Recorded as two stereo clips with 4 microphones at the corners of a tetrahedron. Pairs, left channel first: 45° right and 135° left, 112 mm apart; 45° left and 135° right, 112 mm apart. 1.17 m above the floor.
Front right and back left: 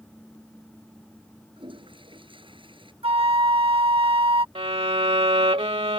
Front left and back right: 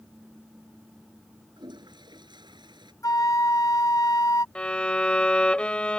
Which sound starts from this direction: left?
A flute, at 3.0 s.